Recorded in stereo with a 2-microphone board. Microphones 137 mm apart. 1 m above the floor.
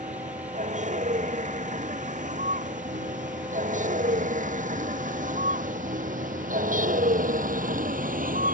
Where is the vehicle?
60° right (ahead or behind); by 8.5 s 85° right.